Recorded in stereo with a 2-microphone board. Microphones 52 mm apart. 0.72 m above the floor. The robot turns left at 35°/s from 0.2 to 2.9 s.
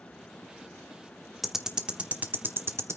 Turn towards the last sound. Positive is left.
turn(degrees=-55)  # may be behind; listen again after turning